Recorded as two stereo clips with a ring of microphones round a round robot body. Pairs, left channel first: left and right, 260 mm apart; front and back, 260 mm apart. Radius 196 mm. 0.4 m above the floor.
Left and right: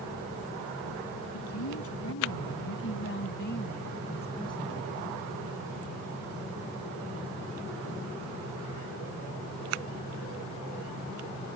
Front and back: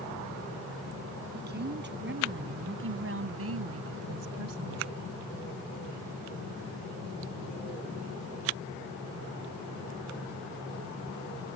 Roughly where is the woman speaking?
Behind left.